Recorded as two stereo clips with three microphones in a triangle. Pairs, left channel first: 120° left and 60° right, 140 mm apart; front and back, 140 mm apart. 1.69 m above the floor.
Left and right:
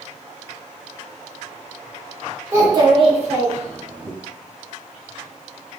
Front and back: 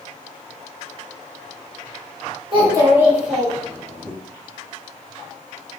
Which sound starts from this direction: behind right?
A child speaking, at 2.5 s.